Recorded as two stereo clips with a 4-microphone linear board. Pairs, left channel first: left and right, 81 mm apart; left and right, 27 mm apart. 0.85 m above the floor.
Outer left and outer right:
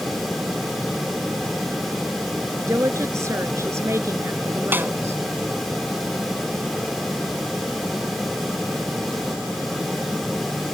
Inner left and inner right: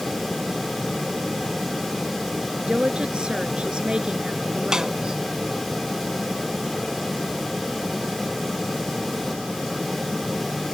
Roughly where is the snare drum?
Right.